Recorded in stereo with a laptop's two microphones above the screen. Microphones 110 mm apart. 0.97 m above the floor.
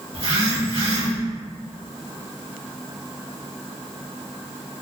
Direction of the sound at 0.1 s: 60° right (ahead or behind).